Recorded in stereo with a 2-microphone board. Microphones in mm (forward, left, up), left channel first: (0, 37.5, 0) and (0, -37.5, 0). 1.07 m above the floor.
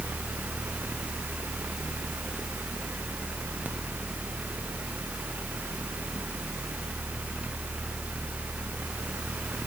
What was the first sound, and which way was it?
Only background noise.